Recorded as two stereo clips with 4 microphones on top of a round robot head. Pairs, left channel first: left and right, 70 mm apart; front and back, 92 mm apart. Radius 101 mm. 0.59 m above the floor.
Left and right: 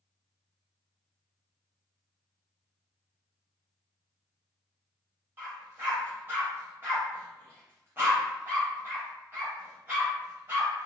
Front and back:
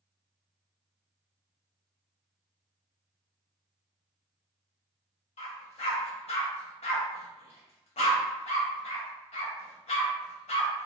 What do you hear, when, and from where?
5.4 s a dog barking: 20° right, 0.6 m